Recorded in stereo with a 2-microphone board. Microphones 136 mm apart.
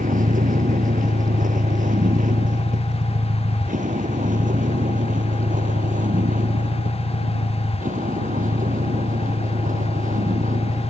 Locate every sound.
0.0 s a vehicle: 80° right; by 10.9 s 70° right (ahead or behind)